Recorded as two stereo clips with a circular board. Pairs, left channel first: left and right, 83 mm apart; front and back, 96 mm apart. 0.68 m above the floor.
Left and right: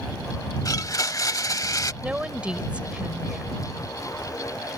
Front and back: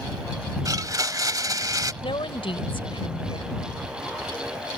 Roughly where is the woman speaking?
Ahead.